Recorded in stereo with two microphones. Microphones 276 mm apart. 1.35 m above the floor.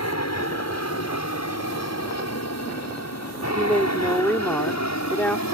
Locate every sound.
0.0 s an aircraft: 60° left (ahead or behind); by 5.5 s 70° left (ahead or behind)
3.5 s a woman speaking: 5° left (ahead or behind)